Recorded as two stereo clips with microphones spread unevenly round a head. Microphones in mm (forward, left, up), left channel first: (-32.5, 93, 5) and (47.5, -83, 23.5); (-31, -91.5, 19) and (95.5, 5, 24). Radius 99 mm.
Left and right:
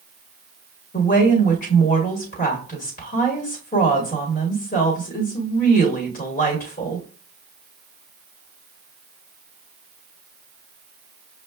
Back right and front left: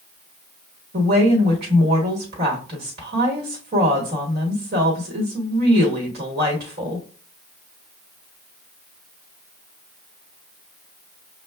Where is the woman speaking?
70° left, 1.2 m.